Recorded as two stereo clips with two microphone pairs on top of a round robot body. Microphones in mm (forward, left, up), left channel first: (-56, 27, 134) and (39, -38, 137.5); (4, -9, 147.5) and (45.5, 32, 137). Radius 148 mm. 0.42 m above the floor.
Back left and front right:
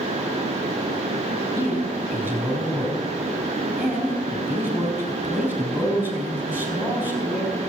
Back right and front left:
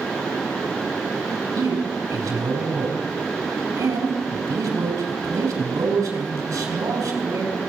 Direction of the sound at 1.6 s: 40° left.